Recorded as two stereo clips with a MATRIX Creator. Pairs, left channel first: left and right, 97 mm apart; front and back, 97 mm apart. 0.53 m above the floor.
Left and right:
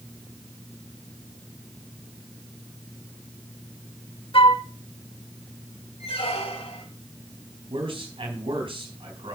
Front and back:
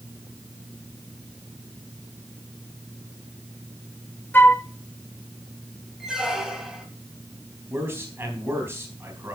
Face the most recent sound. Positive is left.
turn(degrees=-115)